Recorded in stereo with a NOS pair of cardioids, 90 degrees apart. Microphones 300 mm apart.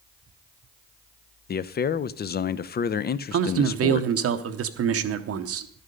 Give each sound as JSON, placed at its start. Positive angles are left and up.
{"t": 1.5, "sound": "a man speaking", "azimuth_deg": 35, "distance_m": 0.5}
{"t": 3.3, "sound": "a man speaking", "azimuth_deg": -50, "distance_m": 0.8}